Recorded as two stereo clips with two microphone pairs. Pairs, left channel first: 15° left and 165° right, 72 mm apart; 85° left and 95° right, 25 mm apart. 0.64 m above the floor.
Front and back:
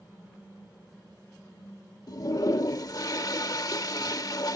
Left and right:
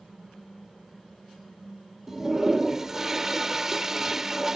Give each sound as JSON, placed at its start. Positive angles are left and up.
{"t": 2.1, "sound": "a toilet flushing", "azimuth_deg": -25}